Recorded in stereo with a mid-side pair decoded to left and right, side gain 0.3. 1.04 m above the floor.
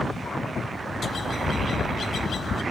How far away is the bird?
About 0.9 m.